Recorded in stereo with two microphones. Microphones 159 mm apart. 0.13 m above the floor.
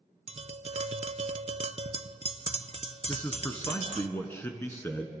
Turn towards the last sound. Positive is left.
turn(degrees=15)  # may be behind; listen again after turning